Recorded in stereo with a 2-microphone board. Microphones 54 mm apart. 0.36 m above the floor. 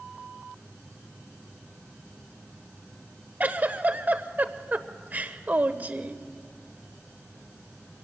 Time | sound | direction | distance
3.4 | a giggle | 35° right (ahead or behind) | 1.1 m